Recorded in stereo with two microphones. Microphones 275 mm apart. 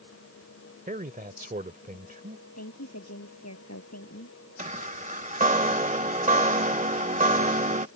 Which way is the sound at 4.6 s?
25° right (ahead or behind).